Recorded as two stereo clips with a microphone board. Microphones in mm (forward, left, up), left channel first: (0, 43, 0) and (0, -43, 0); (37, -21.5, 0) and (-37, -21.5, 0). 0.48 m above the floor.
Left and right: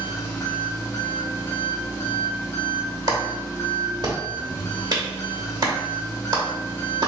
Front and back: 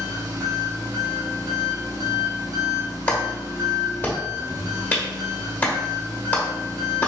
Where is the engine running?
150° left, 1.0 m.